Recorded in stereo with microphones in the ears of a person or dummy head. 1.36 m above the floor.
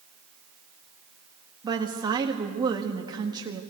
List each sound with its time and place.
1.6 s a woman speaking: 20° right (ahead or behind), 1.6 m